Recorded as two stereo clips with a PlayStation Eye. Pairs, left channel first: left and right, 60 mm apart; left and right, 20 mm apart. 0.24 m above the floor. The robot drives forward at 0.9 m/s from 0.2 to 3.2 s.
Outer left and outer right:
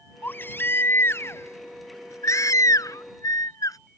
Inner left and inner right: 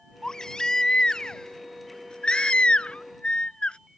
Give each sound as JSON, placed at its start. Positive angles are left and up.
{"t": 0.2, "sound": "a baby crying", "side_deg": 35}